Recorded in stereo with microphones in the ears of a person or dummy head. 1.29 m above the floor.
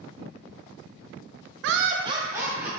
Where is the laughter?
75° right (ahead or behind), 0.5 m; by 2.7 s 5° right (ahead or behind), 1.5 m.